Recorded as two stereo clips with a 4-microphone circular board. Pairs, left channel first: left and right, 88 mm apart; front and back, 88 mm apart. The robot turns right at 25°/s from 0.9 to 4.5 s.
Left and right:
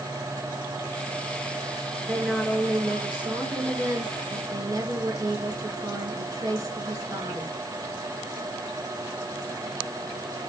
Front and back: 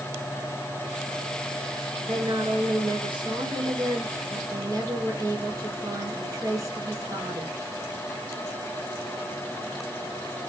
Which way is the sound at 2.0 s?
165° left.